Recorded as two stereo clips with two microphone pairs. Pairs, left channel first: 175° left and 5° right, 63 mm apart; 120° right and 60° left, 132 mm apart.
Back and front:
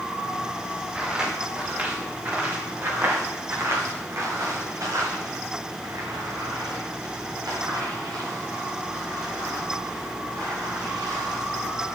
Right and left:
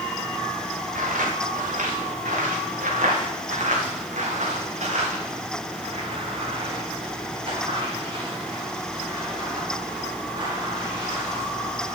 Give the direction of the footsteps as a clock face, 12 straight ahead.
10 o'clock.